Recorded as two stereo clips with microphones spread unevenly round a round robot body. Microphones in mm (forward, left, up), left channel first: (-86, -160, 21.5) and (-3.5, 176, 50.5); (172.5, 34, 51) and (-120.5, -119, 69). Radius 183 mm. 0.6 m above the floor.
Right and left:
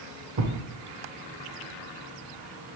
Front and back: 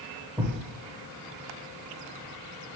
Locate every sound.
0.4 s a thud: 125° left, 0.9 m